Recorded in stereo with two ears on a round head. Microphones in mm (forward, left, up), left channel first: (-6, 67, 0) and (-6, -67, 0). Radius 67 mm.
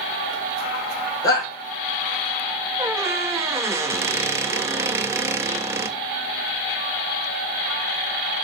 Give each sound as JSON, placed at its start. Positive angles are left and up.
{"t": 1.2, "sound": "a shout", "side_deg": 25, "distance_m": 5.0}
{"t": 2.8, "sound": "a squeak", "side_deg": -15, "distance_m": 0.7}